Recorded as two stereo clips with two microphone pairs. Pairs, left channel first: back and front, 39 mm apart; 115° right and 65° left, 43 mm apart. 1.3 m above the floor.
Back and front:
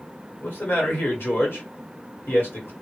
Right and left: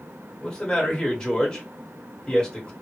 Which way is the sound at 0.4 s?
170° left.